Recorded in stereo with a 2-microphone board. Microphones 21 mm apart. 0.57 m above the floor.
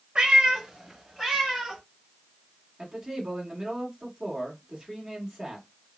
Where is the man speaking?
20° right (ahead or behind), 1.5 m.